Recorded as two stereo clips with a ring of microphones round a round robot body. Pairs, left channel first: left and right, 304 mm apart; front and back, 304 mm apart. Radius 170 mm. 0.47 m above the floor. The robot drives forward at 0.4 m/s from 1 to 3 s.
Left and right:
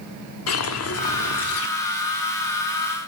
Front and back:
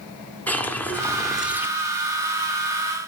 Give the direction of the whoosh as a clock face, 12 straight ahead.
9 o'clock.